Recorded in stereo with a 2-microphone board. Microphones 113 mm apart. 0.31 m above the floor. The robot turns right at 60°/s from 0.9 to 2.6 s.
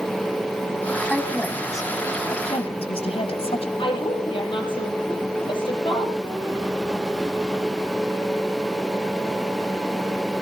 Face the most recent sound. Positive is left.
turn(degrees=50)  # may be behind; listen again after turning